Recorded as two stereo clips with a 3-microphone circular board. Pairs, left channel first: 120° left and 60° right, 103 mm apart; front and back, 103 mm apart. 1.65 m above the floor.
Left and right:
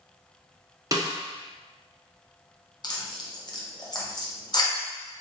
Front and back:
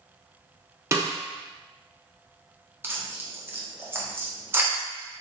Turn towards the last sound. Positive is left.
turn(degrees=125)